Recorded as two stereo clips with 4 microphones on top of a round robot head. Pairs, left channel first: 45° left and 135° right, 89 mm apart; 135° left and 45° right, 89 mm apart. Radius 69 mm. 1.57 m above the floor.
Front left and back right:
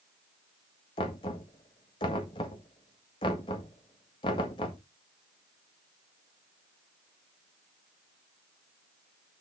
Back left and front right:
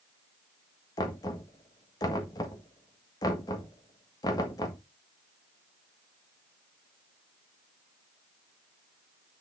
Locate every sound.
1.0 s knocking: 85° left, 1.6 m